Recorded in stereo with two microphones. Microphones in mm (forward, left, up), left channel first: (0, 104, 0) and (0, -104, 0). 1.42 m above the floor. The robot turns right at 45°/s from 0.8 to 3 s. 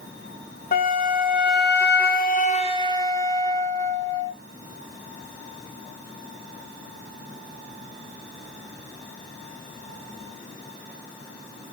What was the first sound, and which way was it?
A flute, 60° left.